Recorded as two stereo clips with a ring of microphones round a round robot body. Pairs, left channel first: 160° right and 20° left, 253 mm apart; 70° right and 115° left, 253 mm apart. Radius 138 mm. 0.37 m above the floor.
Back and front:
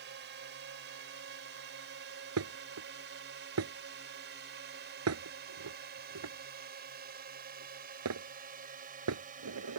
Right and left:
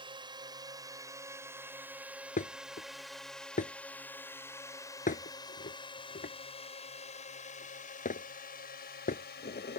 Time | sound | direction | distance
0.0 | a drone | 45° left | ?
2.4 | dishes clattering | 5° right | ?